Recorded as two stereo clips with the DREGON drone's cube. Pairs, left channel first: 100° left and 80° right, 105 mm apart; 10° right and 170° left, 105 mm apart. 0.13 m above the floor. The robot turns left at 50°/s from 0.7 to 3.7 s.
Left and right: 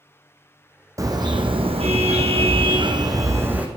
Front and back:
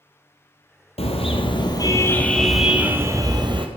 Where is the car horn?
20° right, 2 m; by 3.7 s 155° right, 2 m.